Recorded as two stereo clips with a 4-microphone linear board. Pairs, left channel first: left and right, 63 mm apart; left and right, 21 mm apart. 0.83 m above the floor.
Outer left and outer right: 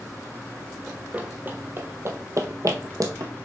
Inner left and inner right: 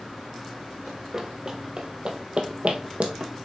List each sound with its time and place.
0.9 s running footsteps: 15° right (ahead or behind), 1.2 m; by 3.3 s 60° right (ahead or behind), 1.6 m